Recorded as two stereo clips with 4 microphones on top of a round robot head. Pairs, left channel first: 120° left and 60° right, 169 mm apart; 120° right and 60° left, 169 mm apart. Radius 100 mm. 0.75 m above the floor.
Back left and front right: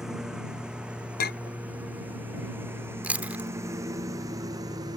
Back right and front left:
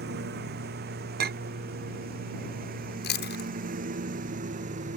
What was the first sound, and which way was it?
A lawn mower, 30° left.